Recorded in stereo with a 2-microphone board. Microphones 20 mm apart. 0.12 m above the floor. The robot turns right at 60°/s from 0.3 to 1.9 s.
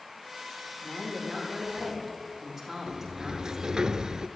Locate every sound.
0.8 s a woman speaking: 125° left, 6.5 m; by 3.9 s 170° right, 6.5 m
2.9 s a sliding door: 45° right (ahead or behind), 0.5 m